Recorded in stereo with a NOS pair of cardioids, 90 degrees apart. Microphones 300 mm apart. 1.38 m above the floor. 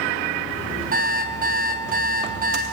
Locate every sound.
0.9 s an alarm clock: 30° right, 5.5 m